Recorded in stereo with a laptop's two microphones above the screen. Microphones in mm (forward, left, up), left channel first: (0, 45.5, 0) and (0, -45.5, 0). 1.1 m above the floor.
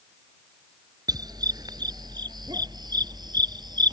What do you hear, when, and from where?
1.1 s a dog barking: 45° right (ahead or behind); by 3.9 s 50° right (ahead or behind)